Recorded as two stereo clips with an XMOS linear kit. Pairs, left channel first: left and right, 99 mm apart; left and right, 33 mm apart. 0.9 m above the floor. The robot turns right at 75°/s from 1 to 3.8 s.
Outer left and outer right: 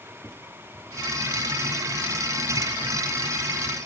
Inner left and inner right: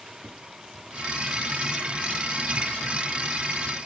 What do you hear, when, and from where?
Only background noise.